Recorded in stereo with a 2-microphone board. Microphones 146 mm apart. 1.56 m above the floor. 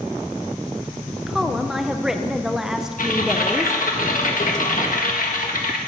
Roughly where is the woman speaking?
Centre.